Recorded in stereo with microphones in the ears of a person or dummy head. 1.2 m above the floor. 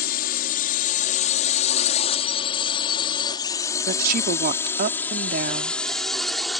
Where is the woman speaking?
60° right (ahead or behind).